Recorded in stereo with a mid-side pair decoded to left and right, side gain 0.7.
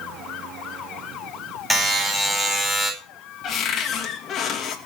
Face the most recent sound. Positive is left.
turn(degrees=40)